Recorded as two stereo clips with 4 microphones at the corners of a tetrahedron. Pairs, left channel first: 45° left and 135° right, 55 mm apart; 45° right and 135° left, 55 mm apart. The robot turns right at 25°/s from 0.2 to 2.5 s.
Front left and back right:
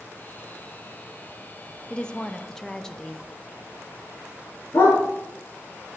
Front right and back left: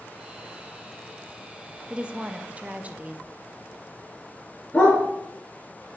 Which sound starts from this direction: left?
A woman speaking, at 1.9 s.